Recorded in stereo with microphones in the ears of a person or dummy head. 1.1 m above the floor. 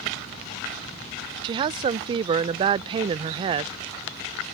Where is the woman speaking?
30° right (ahead or behind).